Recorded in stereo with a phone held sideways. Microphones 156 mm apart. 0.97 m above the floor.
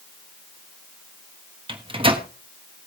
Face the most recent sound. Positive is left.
turn(degrees=-35)  # may be behind; listen again after turning